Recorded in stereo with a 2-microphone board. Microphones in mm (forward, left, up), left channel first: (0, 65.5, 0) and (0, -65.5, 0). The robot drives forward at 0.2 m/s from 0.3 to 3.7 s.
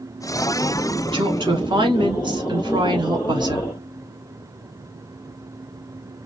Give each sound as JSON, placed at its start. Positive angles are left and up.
{"t": 1.1, "sound": "a woman speaking", "side_deg": -40, "distance_m": 1.3}